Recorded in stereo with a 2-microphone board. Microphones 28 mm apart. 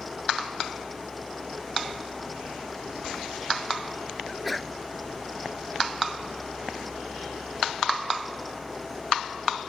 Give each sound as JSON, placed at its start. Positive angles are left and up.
{"t": 4.3, "sound": "a sneeze", "side_deg": 0}